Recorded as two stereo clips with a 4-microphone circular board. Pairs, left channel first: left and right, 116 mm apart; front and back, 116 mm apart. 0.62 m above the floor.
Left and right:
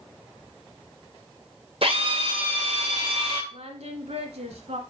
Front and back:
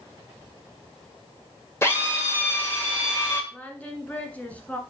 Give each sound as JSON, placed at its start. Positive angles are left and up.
{"t": 1.8, "sound": "a drill", "azimuth_deg": -65, "distance_m": 2.0}
{"t": 3.5, "sound": "singing", "azimuth_deg": -75, "distance_m": 1.4}